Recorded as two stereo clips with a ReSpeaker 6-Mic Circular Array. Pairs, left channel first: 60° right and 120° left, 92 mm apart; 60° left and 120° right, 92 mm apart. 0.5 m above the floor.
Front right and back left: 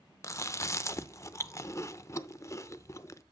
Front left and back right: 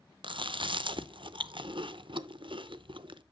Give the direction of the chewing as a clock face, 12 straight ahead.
4 o'clock.